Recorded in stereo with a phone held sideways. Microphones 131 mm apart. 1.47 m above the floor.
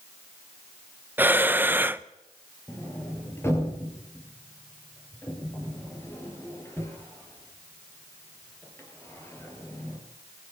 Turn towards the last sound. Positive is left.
turn(degrees=20)  # may be behind; listen again after turning